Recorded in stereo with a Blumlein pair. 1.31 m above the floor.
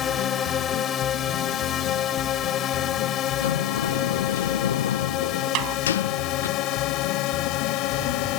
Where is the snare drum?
40° right.